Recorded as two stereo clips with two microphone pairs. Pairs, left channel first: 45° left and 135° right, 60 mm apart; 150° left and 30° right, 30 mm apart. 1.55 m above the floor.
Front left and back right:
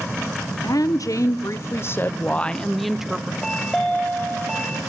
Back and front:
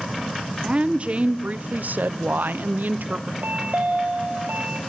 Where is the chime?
35° right, 3 m.